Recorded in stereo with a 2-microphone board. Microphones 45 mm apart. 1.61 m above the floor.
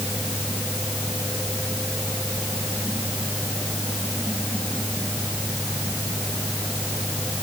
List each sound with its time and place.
Only background noise.